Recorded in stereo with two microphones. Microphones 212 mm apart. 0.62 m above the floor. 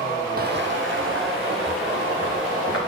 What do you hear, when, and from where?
0.4 s footsteps: 45° right (ahead or behind), 1.0 m; by 2.8 s 80° right, 4 m